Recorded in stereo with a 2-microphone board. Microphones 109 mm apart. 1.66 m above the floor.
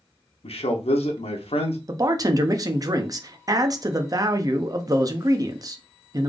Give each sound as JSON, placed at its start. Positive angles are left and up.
{"t": 0.4, "sound": "a man speaking", "side_deg": 75, "distance_m": 1.0}
{"t": 1.9, "sound": "a man speaking", "side_deg": -35, "distance_m": 0.7}